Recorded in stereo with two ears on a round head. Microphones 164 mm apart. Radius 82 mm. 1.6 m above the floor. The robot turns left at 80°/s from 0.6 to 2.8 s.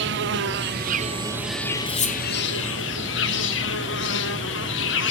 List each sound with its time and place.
0.0 s an insect: 105° right, 0.9 m; by 5.1 s 80° left, 0.9 m
1.9 s cutlery clinking: 45° left (ahead or behind), 1.4 m; by 2.2 s 35° left (ahead or behind), 1.4 m